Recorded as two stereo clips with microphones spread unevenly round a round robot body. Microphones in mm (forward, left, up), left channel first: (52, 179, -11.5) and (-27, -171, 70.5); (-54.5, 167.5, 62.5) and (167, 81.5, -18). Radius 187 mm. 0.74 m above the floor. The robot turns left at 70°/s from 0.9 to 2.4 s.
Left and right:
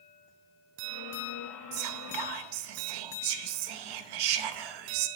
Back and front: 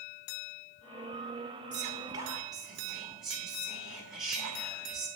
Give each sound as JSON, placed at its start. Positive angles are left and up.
{"t": 1.7, "sound": "whispering", "azimuth_deg": -45, "distance_m": 0.7}